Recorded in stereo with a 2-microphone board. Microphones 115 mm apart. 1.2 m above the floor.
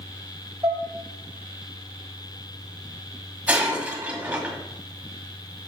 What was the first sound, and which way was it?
Dishes clattering, 35° right (ahead or behind).